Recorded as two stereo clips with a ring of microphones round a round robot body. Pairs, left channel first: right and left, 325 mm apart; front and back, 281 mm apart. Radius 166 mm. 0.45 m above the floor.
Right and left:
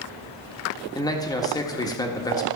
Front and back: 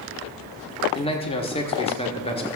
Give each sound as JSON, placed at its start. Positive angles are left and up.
{"t": 0.9, "sound": "a man speaking", "azimuth_deg": -30, "distance_m": 1.4}